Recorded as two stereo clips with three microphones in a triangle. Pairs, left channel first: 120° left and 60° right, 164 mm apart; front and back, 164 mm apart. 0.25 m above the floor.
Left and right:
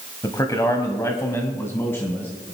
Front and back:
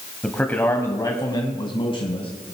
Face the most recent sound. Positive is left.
turn(degrees=45)